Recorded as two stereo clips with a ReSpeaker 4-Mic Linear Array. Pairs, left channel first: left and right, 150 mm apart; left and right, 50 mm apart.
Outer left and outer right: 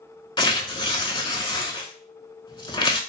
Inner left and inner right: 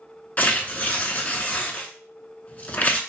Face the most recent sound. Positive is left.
turn(degrees=35)  # may be behind; listen again after turning